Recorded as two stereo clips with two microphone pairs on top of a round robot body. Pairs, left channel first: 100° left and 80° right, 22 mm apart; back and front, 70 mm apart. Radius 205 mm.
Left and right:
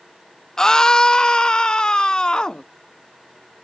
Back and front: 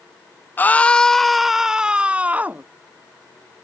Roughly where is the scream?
Behind left.